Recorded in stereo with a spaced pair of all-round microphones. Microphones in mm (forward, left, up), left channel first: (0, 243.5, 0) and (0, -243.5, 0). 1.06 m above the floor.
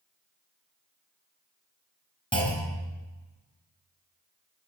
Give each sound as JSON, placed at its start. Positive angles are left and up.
{"t": 2.3, "sound": "a clunk", "side_deg": 10, "distance_m": 3.0}